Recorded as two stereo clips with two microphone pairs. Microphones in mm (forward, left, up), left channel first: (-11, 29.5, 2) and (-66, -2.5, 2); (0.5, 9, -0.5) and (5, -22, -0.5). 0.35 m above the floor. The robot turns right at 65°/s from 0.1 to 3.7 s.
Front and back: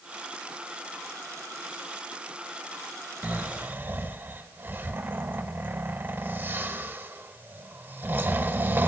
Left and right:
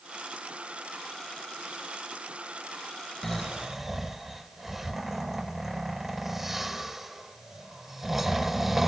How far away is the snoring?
About 0.5 m.